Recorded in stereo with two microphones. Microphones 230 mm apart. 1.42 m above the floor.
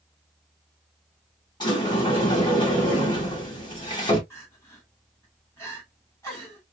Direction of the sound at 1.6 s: 20° left (ahead or behind).